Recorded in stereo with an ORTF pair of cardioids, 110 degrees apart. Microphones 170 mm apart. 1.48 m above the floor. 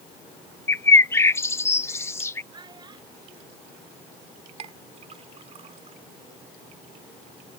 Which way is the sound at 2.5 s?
25° right.